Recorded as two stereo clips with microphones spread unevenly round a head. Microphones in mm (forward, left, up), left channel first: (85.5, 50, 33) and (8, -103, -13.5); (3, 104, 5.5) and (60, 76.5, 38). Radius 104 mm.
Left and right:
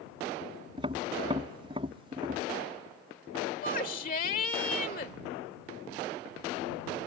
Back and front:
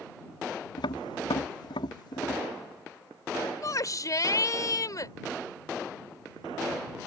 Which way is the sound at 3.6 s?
115° left.